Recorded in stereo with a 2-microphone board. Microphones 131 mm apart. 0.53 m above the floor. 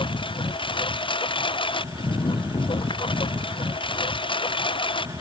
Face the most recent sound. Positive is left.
turn(degrees=40)  # may be behind; listen again after turning